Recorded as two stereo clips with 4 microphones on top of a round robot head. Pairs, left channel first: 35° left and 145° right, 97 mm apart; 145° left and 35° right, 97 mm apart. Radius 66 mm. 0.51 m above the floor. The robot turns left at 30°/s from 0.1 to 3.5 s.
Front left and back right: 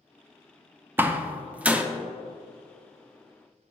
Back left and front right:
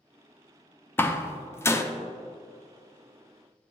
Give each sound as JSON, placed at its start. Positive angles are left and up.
{"t": 1.0, "sound": "a door slam", "azimuth_deg": 180, "distance_m": 0.6}